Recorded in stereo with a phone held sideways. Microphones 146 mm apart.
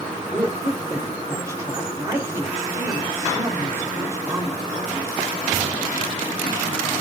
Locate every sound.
0.3 s a woman speaking: 20° right (ahead or behind), 3.5 m